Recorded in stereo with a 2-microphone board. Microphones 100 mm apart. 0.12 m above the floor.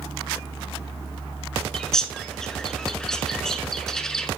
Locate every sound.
1.7 s a bird: 5° left (ahead or behind), 0.7 m